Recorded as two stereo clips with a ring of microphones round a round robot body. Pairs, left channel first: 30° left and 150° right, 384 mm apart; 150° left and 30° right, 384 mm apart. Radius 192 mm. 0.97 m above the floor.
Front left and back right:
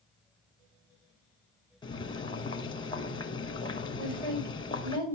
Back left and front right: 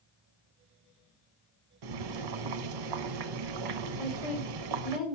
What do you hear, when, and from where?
1.8 s boiling: 50° right, 0.9 m
4.0 s a woman speaking: 120° right, 4 m